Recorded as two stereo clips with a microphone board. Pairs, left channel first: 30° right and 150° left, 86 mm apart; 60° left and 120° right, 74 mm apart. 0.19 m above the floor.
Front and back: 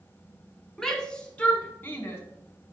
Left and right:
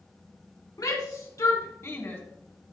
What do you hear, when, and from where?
0.8 s a shout: 50° left, 1.8 m; by 2.2 s 15° left, 1.5 m